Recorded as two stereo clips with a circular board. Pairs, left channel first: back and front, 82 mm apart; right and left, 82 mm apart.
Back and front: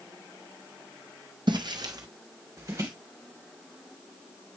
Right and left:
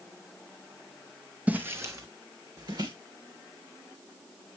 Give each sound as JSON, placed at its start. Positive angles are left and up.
{"t": 1.5, "sound": "footsteps", "azimuth_deg": 20, "distance_m": 0.9}